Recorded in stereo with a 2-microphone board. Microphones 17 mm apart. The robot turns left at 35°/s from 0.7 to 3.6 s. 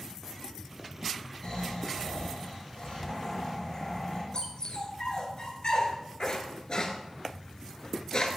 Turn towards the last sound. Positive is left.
turn(degrees=50)  # may be behind; listen again after turning